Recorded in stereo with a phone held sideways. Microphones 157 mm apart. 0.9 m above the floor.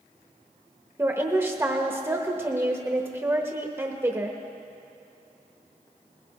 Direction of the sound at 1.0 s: 15° right (ahead or behind).